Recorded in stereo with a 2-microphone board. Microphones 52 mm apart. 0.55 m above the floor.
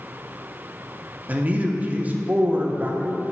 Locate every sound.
1.3 s a man speaking: 30° right (ahead or behind), 0.7 m